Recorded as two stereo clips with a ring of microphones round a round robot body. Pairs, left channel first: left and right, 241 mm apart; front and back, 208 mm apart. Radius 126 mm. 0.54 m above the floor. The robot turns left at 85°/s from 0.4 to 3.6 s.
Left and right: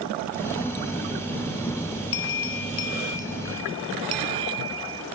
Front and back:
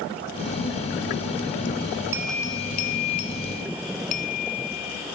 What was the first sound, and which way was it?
A bell, 105° left.